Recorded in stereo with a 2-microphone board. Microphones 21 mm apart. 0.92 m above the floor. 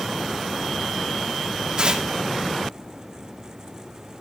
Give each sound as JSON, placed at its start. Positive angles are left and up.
{"t": 1.8, "sound": "tearing paper", "side_deg": -45, "distance_m": 2.5}